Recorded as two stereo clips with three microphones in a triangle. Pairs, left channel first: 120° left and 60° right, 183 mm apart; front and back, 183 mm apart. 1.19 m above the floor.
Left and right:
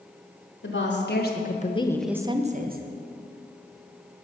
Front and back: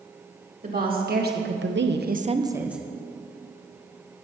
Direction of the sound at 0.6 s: 140° left.